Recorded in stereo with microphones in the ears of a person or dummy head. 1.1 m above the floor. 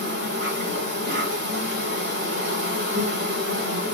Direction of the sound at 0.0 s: 45° right (ahead or behind).